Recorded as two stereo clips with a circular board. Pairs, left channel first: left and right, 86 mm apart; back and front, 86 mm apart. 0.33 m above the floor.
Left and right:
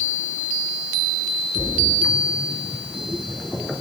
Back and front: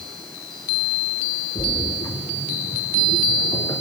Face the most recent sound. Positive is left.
turn(degrees=180)